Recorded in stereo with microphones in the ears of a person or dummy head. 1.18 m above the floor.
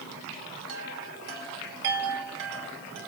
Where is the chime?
75° right (ahead or behind), 4.5 m.